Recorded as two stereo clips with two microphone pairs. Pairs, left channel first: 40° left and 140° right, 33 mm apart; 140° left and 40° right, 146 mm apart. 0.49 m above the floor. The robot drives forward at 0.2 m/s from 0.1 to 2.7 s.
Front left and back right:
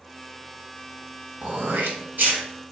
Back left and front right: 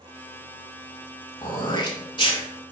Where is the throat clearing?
160° right, 0.9 m; by 2.4 s 165° right, 1.1 m.